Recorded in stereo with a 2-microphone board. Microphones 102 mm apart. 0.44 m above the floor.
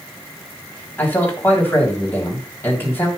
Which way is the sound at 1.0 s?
20° left (ahead or behind).